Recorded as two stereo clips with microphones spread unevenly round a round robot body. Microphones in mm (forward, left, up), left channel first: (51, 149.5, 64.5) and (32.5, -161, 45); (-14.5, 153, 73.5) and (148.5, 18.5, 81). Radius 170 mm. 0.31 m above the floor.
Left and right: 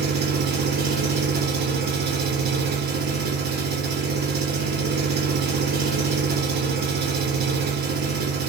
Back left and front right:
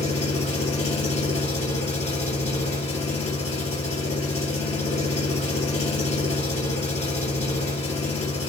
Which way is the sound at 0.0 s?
155° right.